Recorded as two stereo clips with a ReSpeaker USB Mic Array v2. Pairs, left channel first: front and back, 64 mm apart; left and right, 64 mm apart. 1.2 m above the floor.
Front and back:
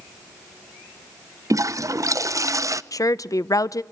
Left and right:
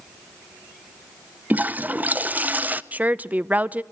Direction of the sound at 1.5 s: 150° right.